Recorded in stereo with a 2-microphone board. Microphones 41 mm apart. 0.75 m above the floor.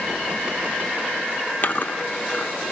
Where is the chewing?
50° left (ahead or behind), 1.1 m.